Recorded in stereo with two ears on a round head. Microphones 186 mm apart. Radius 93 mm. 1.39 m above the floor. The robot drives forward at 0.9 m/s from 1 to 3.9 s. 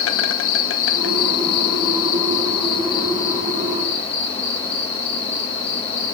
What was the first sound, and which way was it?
An insect, 65° left (ahead or behind).